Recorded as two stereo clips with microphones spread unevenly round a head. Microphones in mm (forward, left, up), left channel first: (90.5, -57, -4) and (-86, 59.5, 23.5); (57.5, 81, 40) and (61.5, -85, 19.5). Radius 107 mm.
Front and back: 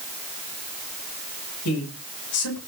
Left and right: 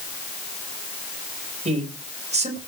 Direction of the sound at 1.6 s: 40° right.